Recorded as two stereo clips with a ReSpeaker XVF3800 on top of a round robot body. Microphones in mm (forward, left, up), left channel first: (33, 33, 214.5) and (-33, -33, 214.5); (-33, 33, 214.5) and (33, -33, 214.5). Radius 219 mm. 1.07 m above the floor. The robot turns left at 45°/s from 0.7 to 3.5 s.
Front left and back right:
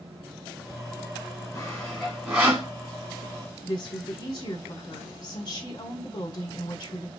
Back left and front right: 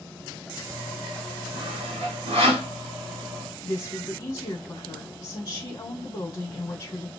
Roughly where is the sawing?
Ahead.